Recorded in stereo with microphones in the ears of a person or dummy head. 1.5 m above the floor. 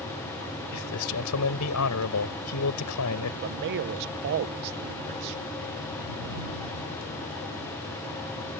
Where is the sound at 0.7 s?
85° left.